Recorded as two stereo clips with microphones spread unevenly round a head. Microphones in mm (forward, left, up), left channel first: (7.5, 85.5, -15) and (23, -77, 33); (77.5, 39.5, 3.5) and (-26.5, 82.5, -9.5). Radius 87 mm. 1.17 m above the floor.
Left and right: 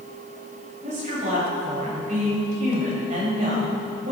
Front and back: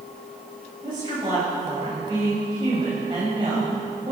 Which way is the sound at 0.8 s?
135° right.